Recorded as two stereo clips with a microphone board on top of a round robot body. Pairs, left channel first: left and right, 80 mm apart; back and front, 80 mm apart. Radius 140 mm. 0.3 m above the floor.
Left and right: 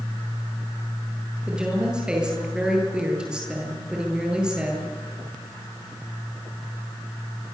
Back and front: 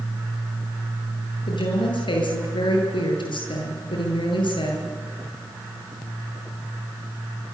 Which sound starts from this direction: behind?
A woman speaking, at 1.5 s.